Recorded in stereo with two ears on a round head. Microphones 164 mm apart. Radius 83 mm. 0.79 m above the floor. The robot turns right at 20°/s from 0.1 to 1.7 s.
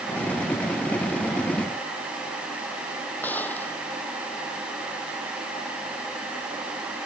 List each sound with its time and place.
3.2 s a gunshot: 10° left (ahead or behind)